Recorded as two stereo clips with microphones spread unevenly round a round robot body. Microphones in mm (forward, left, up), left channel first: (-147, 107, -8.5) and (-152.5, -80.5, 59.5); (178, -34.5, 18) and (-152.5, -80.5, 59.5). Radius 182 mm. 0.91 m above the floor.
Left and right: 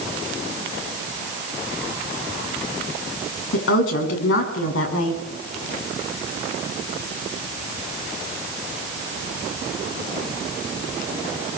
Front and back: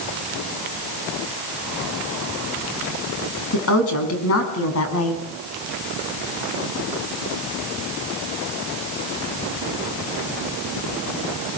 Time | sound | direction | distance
3.5 | a woman speaking | 60° left | 7 m